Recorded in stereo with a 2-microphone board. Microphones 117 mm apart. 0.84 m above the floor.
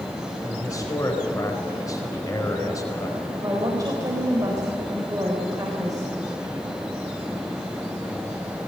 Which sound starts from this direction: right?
A woman speaking, at 3.4 s.